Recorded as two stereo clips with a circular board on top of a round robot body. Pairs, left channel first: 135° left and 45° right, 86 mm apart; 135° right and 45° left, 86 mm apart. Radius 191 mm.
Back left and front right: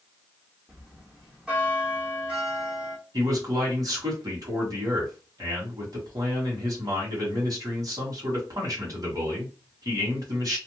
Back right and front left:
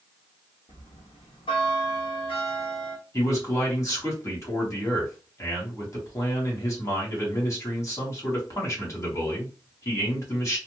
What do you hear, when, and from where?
0.7 s a bell: 125° right, 1.2 m
3.1 s a man speaking: 85° right, 1.8 m